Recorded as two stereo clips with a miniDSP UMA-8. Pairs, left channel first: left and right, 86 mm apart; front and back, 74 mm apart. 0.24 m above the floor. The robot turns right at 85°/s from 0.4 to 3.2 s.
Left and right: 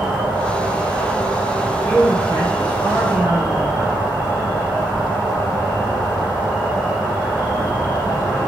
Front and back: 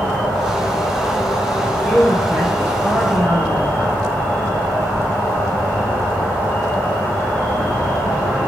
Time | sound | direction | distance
0.0 | an insect | 105° right | 1.3 m
1.6 | a man speaking | 65° left | 1.1 m